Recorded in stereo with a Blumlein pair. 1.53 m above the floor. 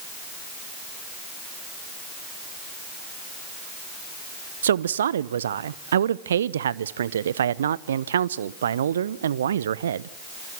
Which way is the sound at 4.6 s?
65° right.